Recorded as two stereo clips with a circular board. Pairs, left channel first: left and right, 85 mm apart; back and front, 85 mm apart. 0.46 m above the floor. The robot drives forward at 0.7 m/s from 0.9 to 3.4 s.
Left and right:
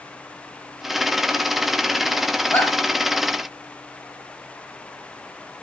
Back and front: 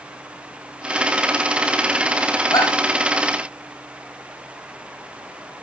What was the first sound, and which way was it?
A shout, 150° left.